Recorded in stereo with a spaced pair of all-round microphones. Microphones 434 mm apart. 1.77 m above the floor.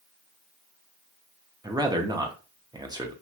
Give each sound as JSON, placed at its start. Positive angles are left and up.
{"t": 1.6, "sound": "a man speaking", "side_deg": -10, "distance_m": 0.6}